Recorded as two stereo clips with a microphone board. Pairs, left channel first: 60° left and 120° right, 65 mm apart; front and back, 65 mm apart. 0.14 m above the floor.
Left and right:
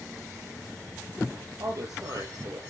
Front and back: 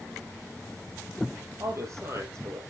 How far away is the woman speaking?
About 2.5 m.